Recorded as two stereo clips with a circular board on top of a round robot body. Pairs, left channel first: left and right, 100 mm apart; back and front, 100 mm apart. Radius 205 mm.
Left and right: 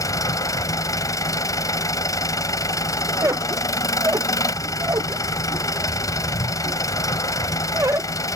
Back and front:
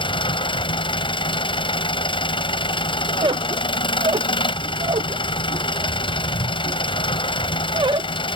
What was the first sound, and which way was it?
An engine running, 145° left.